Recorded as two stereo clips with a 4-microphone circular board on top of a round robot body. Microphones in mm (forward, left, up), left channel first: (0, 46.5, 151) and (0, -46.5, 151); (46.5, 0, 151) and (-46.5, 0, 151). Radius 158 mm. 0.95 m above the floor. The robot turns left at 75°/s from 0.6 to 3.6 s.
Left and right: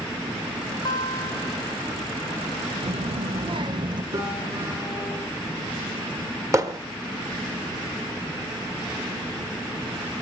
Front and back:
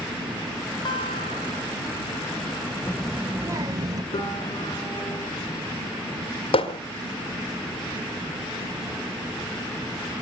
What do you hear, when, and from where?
0.8 s a guitar: 45° left, 3.5 m; by 1.7 s 20° right, 3.5 m
2.8 s a child speaking: 70° right, 0.9 m; by 4.0 s 125° right, 0.9 m
4.1 s a piano: 40° right, 4.5 m
6.5 s hammering: 30° right, 1.3 m